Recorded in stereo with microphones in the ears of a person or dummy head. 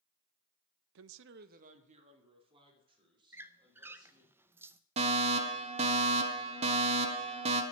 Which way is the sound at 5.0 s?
25° right (ahead or behind).